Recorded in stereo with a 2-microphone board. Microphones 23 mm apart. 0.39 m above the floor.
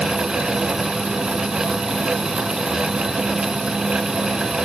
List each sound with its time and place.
Only background noise.